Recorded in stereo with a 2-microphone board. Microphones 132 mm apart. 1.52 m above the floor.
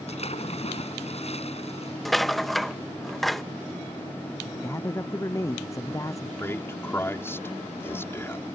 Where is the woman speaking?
25° left (ahead or behind).